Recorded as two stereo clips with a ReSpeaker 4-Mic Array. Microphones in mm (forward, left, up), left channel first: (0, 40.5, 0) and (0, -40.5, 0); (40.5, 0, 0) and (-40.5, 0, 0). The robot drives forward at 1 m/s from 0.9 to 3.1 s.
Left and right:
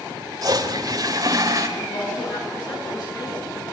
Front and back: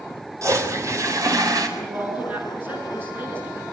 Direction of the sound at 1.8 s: 110° left.